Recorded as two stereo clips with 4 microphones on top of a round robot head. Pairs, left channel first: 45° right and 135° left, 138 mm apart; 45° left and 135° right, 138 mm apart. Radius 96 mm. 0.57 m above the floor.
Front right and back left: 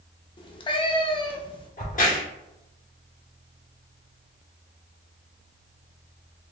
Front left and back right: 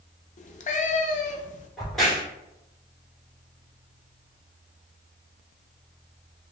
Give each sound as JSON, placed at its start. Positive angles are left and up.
{"t": 0.4, "sound": "a cat meowing", "azimuth_deg": 10, "distance_m": 0.6}
{"t": 1.8, "sound": "a crack", "azimuth_deg": -45, "distance_m": 2.0}